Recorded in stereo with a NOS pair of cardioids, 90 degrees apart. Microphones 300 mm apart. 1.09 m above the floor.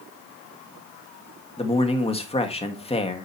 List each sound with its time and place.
1.6 s a man speaking: 20° left, 1.8 m